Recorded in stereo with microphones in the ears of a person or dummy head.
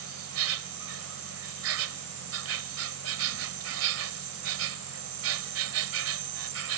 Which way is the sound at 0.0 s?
75° right (ahead or behind).